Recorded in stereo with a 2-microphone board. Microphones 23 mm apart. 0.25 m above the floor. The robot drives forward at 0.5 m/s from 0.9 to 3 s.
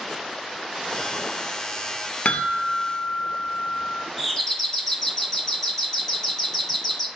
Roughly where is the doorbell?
Centre.